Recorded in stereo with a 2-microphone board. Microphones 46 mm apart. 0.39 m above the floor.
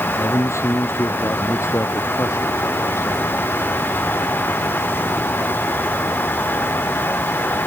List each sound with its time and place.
0.2 s a man speaking: 75° left (ahead or behind)